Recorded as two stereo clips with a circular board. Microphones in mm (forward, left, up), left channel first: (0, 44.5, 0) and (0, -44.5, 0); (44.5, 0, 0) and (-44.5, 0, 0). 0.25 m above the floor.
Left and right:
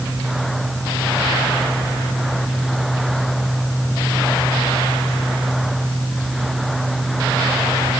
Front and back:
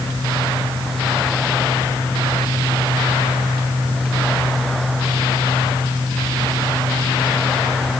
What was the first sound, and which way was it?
Only background noise.